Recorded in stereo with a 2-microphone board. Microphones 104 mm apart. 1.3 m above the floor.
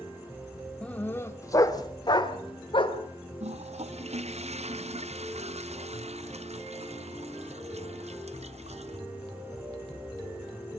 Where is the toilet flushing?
70° right (ahead or behind), 0.7 m.